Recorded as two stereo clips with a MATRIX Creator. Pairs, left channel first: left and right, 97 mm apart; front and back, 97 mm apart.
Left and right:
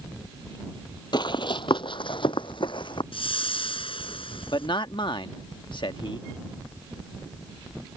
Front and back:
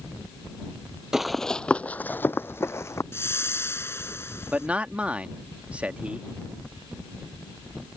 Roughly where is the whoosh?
Ahead left.